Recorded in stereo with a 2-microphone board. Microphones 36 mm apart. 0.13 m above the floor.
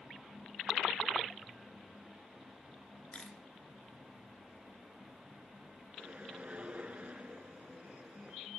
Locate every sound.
3.1 s a camera shutter: 35° left (ahead or behind), 2.5 m
6.0 s a whoosh: 40° right (ahead or behind), 1.0 m